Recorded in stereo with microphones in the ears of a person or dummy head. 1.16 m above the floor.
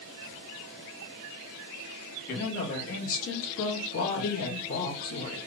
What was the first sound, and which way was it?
A woman speaking, 65° left (ahead or behind).